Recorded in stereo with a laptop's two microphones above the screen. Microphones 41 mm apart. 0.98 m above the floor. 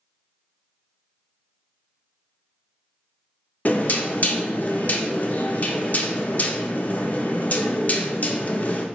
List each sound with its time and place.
3.6 s knocking: 35° left (ahead or behind), 0.5 m